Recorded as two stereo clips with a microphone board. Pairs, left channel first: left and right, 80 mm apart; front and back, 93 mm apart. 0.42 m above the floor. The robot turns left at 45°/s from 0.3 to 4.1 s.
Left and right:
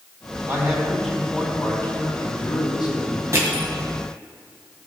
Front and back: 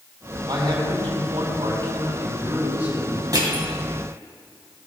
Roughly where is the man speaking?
Behind right.